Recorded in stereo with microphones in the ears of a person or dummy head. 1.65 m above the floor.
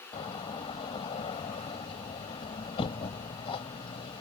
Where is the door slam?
30° left (ahead or behind).